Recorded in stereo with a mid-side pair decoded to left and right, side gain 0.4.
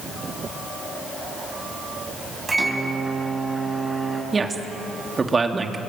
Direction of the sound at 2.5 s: 25° right.